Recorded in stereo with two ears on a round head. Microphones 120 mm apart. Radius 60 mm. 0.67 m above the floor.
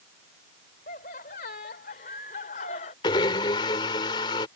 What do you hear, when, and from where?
0.9 s laughter: 65° left (ahead or behind); by 2.9 s 60° left (ahead or behind)
3.0 s a blender: 35° left (ahead or behind)